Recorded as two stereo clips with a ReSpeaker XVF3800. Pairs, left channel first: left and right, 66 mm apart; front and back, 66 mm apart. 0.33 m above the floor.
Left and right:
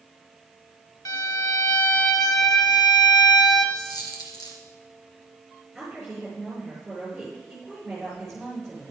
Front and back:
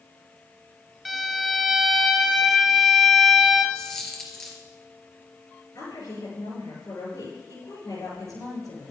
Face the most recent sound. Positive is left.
turn(degrees=0)